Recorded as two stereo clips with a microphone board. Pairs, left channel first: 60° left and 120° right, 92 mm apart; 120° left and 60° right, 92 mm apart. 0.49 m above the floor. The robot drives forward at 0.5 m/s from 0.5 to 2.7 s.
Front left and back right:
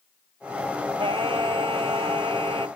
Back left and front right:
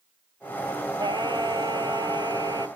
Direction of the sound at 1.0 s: 95° right.